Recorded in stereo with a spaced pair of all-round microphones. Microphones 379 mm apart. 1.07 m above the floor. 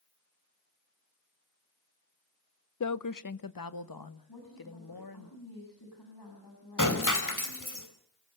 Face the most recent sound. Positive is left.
turn(degrees=55)  # may be behind; listen again after turning